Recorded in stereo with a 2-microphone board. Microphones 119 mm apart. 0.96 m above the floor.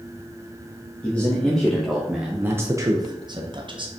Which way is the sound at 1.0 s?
10° left (ahead or behind).